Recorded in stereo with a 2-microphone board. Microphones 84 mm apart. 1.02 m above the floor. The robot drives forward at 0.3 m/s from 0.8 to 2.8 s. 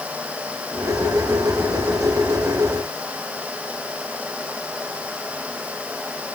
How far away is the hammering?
I don't hear hammering.